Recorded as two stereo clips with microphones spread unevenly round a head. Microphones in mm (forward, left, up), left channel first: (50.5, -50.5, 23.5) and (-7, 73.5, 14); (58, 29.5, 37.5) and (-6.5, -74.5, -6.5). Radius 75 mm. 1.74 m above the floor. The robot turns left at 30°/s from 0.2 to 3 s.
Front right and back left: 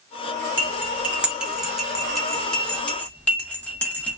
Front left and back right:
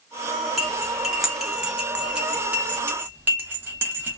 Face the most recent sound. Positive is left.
turn(degrees=-20)